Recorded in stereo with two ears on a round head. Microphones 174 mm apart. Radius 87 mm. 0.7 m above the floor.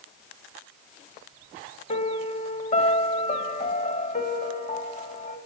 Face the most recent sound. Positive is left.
turn(degrees=40)  # may be behind; listen again after turning